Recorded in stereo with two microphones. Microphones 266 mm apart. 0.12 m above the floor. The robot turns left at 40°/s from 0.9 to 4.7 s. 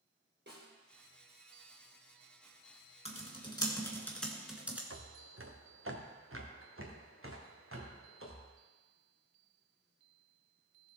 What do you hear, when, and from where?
0.5 s a snare drum: 40° right (ahead or behind), 4 m
3.0 s typing on a keyboard: 25° left (ahead or behind), 1.7 m; by 4.8 s 5° right (ahead or behind), 1.7 m
4.9 s footsteps: 55° right (ahead or behind), 1.2 m; by 8.5 s 50° right (ahead or behind), 3.5 m